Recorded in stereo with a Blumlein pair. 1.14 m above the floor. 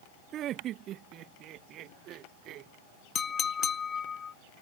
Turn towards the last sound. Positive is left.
turn(degrees=20)